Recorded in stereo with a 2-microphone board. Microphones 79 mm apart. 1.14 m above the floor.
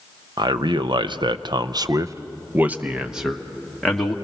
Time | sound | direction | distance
0.4 | a man speaking | 65° right (ahead or behind) | 1.0 m